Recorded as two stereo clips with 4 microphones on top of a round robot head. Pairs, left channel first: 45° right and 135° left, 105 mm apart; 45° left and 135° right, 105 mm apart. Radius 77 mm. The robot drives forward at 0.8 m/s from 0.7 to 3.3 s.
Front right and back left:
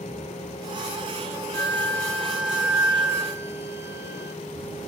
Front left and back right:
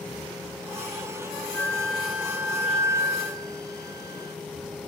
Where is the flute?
15° right, 1.1 m; by 4.3 s 175° right, 1.3 m.